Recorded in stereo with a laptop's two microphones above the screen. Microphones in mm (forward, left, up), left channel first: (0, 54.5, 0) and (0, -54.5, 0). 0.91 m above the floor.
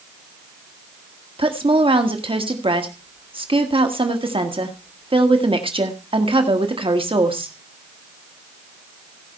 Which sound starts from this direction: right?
A woman speaking, at 1.4 s.